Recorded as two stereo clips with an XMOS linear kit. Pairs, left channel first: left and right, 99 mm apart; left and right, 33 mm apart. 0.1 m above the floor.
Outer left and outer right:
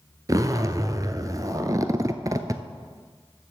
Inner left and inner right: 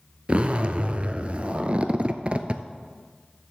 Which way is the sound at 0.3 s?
35° right (ahead or behind).